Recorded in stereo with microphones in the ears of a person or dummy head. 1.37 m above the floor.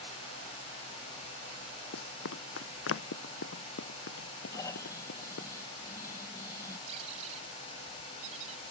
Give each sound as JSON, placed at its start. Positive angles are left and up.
{"t": 1.9, "sound": "running footsteps", "side_deg": 75}
{"t": 4.5, "sound": "snoring", "side_deg": 20}
{"t": 6.9, "sound": "a squeak", "side_deg": -40}